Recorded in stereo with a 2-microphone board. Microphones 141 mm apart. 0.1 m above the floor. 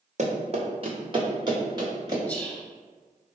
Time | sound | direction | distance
0.2 | running footsteps | 50° right (ahead or behind) | 1.5 m
2.3 | whispering | 10° left (ahead or behind) | 1.3 m